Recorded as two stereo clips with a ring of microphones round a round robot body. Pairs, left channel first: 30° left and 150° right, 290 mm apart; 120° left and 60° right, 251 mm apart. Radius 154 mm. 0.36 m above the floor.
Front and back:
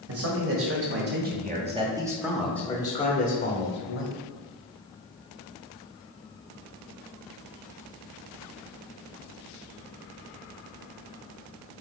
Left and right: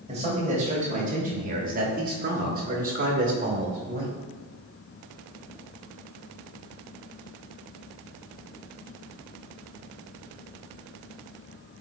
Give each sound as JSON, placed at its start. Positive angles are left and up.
{"t": 0.1, "sound": "a man speaking", "azimuth_deg": -125, "distance_m": 2.0}